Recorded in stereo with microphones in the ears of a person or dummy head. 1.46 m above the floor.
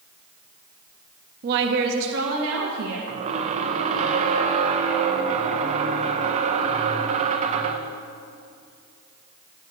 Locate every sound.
1.4 s a woman speaking: 50° right (ahead or behind), 1.1 m; by 3.0 s 85° right, 2 m
3.1 s a squeak: 35° right (ahead or behind), 0.8 m